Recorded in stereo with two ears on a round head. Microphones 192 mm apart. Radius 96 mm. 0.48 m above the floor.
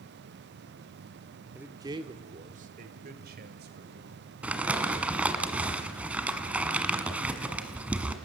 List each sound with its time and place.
1.6 s a man speaking: 5° right (ahead or behind), 1.2 m; by 4.2 s 50° right (ahead or behind), 3 m
4.4 s crumpling: 5° right (ahead or behind), 1.4 m